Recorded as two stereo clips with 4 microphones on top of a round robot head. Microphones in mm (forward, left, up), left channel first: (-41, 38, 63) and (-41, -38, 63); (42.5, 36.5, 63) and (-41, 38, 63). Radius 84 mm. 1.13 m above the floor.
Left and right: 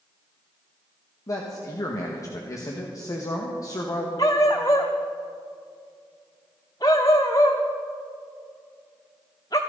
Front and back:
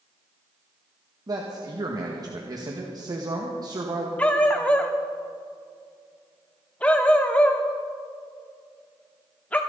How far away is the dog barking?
About 0.7 m.